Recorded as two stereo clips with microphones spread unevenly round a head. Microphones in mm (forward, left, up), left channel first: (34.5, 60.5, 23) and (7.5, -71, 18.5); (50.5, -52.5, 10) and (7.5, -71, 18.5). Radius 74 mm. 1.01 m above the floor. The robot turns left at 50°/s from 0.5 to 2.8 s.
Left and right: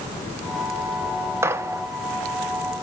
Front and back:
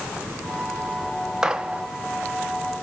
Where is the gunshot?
75° right, 0.6 m; by 1.8 s 95° right, 0.6 m.